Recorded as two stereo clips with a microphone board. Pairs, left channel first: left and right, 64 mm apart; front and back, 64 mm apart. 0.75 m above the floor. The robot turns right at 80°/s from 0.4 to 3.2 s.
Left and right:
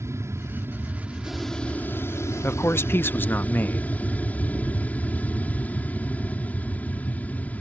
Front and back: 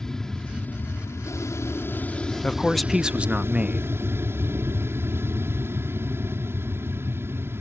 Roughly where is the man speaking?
Ahead left.